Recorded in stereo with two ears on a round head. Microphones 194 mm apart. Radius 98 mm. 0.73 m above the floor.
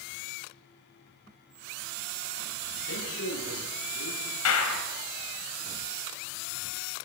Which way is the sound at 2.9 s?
65° left (ahead or behind).